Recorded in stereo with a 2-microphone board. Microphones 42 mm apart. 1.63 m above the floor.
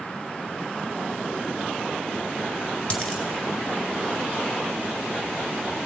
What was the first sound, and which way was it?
A dropped coin, 35° left (ahead or behind).